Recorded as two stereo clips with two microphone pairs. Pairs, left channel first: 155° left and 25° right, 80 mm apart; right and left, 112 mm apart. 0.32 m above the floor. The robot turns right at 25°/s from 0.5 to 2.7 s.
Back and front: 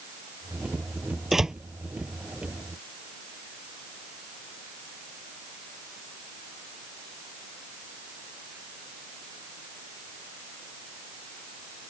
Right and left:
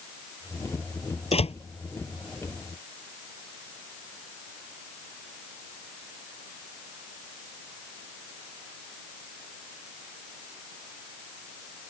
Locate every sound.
1.3 s a door slam: 115° right; by 1.6 s 110° right